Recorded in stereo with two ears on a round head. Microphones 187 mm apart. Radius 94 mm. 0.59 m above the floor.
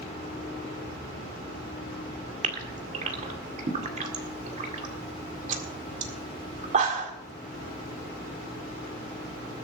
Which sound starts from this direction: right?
A gasp, at 2.4 s.